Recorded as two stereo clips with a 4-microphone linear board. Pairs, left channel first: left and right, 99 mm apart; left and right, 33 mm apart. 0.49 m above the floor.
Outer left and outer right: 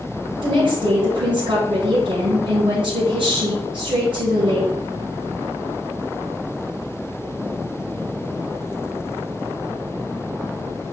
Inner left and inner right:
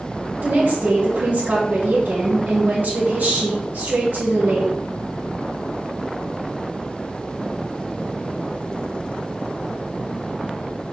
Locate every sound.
0.4 s a woman speaking: 60° right (ahead or behind), 2.5 m